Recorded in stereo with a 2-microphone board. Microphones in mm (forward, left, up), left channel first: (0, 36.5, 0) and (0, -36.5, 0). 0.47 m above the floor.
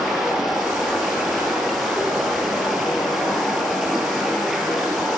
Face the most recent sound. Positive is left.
turn(degrees=-5)  # may be behind; listen again after turning